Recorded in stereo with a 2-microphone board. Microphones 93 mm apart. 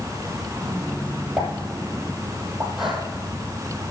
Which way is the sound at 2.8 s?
5° right (ahead or behind).